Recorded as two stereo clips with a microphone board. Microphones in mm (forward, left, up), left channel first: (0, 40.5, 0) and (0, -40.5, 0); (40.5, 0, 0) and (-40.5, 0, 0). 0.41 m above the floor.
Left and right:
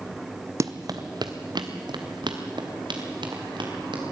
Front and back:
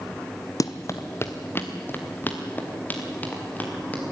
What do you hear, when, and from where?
0.6 s running footsteps: 40° right, 0.9 m; by 4.0 s 70° right, 5 m